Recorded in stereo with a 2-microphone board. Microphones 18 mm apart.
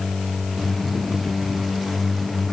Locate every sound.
Only background noise.